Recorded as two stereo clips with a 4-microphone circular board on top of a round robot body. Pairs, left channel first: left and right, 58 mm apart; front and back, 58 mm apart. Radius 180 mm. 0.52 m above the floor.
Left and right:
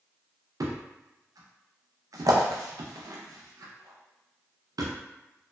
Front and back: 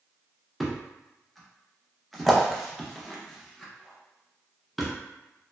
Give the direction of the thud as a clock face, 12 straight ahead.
3 o'clock.